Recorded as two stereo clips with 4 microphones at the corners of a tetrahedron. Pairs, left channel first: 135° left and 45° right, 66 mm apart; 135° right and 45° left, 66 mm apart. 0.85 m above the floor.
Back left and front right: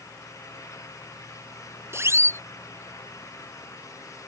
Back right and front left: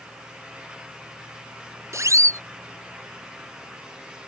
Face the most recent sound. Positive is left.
turn(degrees=5)